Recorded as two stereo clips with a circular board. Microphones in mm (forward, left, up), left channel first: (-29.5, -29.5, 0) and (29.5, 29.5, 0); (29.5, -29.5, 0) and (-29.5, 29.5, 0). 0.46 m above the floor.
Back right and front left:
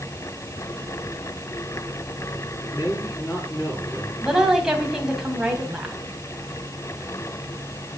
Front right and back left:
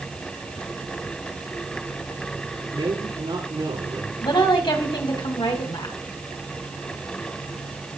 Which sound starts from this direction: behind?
A man speaking, at 2.7 s.